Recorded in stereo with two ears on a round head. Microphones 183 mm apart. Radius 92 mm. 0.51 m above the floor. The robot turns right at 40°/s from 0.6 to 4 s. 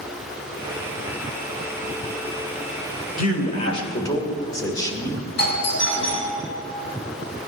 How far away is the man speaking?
About 2 m.